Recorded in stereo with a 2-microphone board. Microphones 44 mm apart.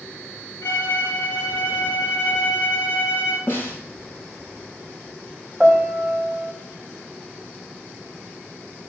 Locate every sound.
0.6 s a violin: 55° left (ahead or behind), 4 m
3.5 s a snare drum: 45° left (ahead or behind), 5 m
5.6 s a piano: centre (ahead or behind), 1.4 m